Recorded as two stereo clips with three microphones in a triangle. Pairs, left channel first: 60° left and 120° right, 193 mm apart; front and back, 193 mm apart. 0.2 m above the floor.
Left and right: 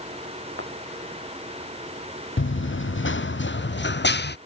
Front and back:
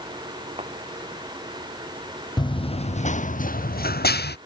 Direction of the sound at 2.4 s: 70° left.